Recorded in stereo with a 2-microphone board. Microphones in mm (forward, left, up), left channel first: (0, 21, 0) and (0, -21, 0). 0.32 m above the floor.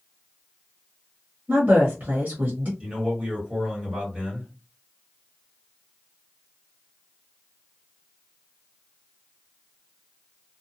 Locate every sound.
1.5 s a woman speaking: 40° right (ahead or behind), 1.1 m
2.8 s a man speaking: 25° right (ahead or behind), 1.8 m